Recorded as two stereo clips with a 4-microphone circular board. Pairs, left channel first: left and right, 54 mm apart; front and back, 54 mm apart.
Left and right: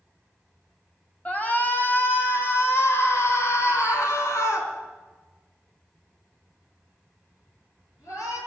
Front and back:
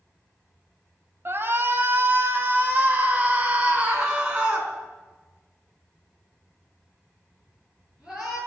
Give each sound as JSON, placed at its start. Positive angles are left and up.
{"t": 1.2, "sound": "a shout", "azimuth_deg": 145, "distance_m": 2.5}